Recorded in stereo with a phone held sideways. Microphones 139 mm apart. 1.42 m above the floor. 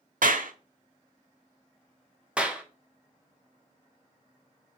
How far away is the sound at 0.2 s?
About 0.6 m.